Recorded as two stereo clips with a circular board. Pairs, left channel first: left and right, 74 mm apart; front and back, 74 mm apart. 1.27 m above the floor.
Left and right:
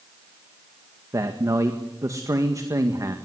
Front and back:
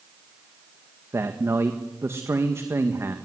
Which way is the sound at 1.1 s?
130° right.